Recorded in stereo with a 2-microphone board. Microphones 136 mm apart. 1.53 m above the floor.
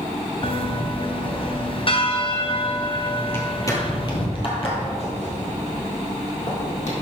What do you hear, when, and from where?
0.4 s a bell: 40° left (ahead or behind), 0.6 m
3.3 s footsteps: 15° left (ahead or behind), 1.9 m; by 6.9 s 60° left (ahead or behind), 3.5 m